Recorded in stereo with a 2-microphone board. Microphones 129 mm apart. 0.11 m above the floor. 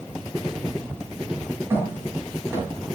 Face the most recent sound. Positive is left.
turn(degrees=-20)  # may be behind; listen again after turning